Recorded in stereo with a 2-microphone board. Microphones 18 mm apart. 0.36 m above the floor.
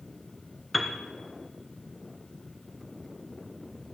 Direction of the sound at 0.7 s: Centre (ahead or behind).